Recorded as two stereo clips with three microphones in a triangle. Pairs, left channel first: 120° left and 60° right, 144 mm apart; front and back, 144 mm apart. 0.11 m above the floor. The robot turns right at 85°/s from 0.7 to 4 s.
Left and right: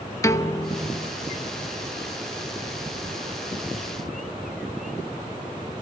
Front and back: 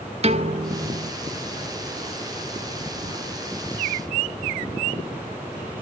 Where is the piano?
Straight behind, 0.5 m; by 1.1 s 145° right, 0.5 m.